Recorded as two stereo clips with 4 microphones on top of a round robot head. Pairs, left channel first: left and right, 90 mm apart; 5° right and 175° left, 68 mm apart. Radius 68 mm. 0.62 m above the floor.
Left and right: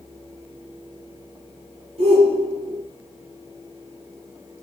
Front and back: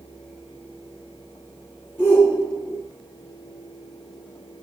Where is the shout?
75° right, 9 m.